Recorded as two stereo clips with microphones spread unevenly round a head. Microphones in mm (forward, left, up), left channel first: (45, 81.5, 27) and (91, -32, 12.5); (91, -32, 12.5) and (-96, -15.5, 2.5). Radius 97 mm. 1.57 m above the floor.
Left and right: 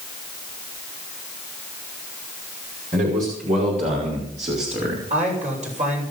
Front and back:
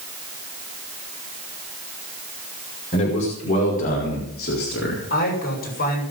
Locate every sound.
2.9 s a man speaking: 60° right, 5.5 m; by 5.1 s 35° right, 3.5 m
5.1 s a man speaking: 45° right, 7 m